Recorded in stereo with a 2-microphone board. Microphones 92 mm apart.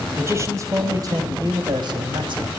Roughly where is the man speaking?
Right.